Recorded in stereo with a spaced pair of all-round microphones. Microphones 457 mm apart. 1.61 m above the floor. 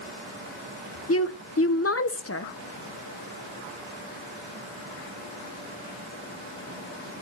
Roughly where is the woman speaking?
Left.